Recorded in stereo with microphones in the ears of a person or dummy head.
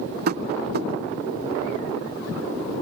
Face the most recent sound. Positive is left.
turn(degrees=-50)  # may be behind; listen again after turning